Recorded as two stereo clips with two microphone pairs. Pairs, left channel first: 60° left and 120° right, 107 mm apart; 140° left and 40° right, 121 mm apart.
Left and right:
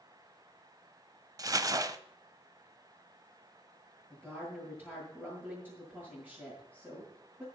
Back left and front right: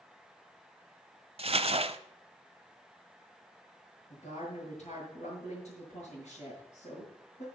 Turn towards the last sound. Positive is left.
turn(degrees=165)